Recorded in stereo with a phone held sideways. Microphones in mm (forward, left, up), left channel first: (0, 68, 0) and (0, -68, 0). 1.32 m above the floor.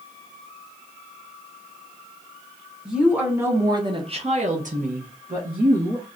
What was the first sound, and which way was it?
A woman speaking, 5° right (ahead or behind).